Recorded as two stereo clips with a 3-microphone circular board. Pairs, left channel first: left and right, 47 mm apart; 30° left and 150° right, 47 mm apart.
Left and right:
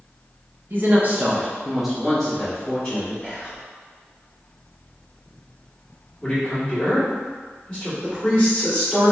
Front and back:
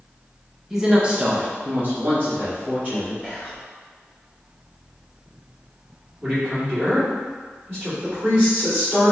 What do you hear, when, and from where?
0.7 s a woman speaking: 70° right, 0.8 m; by 3.1 s 155° left, 1.5 m
3.2 s whispering: 160° left, 1.7 m
6.2 s a man speaking: 155° left, 1.7 m
8.0 s a woman speaking: 155° left, 1.9 m